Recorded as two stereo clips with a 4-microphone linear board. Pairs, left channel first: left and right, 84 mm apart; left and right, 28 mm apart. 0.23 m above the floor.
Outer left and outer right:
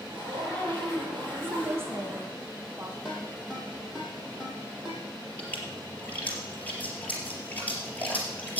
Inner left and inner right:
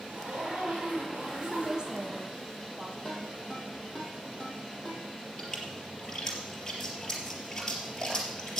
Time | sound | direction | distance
0.1 | a zipper | 75° right (ahead or behind) | 8 m
1.4 | a woman speaking | 30° right (ahead or behind) | 1.5 m
3.0 | a ringtone | 5° right (ahead or behind) | 4.5 m
5.4 | a splash | 20° left (ahead or behind) | 3.5 m